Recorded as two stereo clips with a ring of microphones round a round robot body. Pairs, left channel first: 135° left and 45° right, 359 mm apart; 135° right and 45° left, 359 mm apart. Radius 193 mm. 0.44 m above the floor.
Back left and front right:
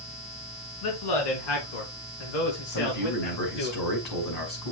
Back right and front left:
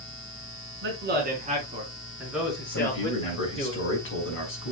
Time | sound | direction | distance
0.8 | a man speaking | 105° left | 5 m
2.7 | a man speaking | 165° left | 5.5 m